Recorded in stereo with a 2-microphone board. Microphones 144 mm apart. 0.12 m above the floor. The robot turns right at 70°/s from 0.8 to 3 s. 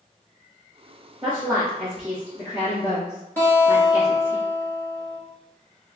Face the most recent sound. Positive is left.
turn(degrees=15)  # may be behind; listen again after turning